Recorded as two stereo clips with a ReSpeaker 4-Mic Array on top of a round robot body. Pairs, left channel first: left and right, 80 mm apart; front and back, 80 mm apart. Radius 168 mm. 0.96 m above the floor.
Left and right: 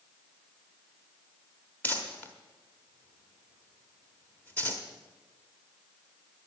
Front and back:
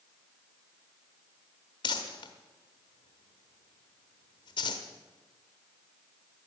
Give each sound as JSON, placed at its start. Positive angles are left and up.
{"t": 1.8, "sound": "crumpling", "azimuth_deg": 20, "distance_m": 0.8}